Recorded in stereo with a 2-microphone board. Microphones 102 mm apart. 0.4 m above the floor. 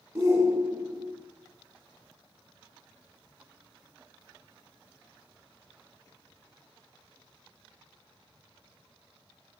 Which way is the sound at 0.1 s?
30° right (ahead or behind).